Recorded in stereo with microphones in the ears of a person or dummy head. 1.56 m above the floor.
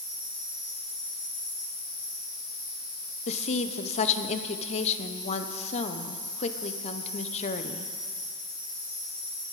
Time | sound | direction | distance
0.0 | an insect | 40° left (ahead or behind) | 3 m
3.3 | a woman speaking | 35° left (ahead or behind) | 0.9 m